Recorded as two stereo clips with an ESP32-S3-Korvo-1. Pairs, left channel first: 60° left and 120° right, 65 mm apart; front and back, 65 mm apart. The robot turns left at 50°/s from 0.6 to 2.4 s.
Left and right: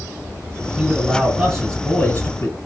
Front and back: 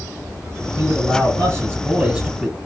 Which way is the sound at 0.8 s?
175° left.